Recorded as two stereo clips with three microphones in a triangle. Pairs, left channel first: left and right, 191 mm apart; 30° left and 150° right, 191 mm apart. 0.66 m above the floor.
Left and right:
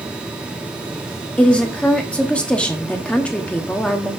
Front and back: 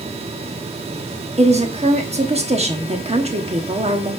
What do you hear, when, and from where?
1.4 s a woman speaking: 170° left, 1.0 m